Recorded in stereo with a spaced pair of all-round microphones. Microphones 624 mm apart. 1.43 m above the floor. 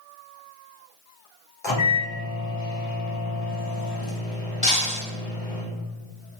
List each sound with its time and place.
1.6 s a microwave: 45° left (ahead or behind), 0.7 m
4.6 s breaking glass: 35° left (ahead or behind), 1.4 m